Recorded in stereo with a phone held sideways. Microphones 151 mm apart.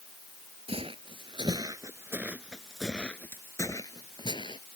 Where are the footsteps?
40° right (ahead or behind); by 4.6 s 35° left (ahead or behind).